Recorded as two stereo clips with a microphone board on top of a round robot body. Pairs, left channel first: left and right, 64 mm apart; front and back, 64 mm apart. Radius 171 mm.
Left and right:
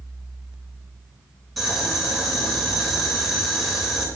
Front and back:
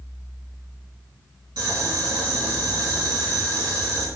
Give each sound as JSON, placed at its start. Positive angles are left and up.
{"t": 1.6, "sound": "boiling", "azimuth_deg": 180, "distance_m": 4.0}